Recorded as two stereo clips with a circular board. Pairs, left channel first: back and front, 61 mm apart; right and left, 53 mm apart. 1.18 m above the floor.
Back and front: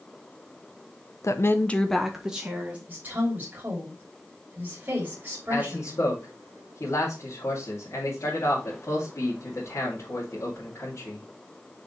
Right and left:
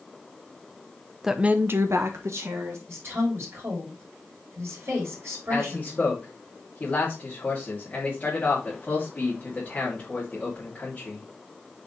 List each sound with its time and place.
1.2 s a woman speaking: 175° left, 0.9 m; by 2.8 s 70° left, 2 m
2.9 s a woman speaking: 60° left, 3 m
5.5 s a man speaking: 155° right, 2.5 m